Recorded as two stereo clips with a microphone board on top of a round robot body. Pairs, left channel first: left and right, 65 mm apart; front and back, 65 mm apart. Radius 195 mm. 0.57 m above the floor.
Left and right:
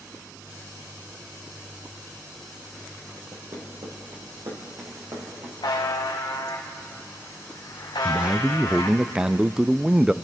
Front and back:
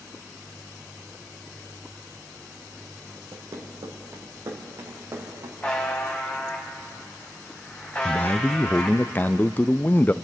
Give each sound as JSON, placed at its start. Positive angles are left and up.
{"t": 3.3, "sound": "running footsteps", "azimuth_deg": -135, "distance_m": 2.5}
{"t": 5.6, "sound": "a buzzer", "azimuth_deg": 70, "distance_m": 1.4}
{"t": 8.1, "sound": "a man speaking", "azimuth_deg": -25, "distance_m": 0.6}